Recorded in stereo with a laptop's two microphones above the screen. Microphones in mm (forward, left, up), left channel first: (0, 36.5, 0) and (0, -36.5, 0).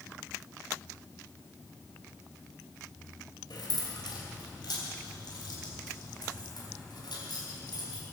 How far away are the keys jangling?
About 3 m.